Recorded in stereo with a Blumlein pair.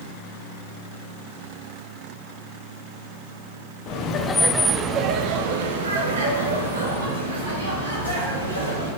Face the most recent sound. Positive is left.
turn(degrees=-75)